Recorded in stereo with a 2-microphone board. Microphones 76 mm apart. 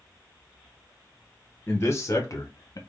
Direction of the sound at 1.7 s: 35° left (ahead or behind).